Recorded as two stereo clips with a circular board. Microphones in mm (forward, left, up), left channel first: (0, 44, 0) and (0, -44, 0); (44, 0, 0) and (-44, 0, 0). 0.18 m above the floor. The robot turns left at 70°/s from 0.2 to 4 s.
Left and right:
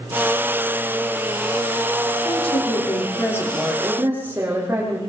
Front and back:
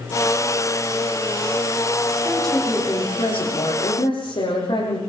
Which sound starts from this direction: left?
A woman speaking, at 2.2 s.